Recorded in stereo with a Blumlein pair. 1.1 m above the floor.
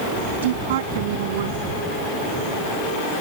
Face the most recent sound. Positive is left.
turn(degrees=-55)